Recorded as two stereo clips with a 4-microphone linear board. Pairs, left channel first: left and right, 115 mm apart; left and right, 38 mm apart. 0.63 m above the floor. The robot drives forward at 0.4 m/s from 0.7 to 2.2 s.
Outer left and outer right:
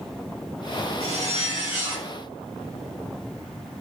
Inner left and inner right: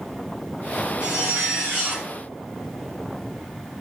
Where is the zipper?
75° right (ahead or behind), 1.8 m; by 2.1 s 60° right (ahead or behind), 2.0 m.